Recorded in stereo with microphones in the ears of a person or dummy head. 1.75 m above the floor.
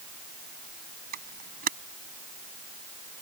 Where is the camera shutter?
45° right (ahead or behind).